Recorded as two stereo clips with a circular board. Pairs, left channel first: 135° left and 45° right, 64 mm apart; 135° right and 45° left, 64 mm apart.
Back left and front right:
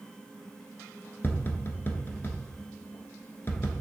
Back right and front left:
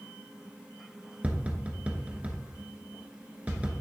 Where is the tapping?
105° left, 1.1 m.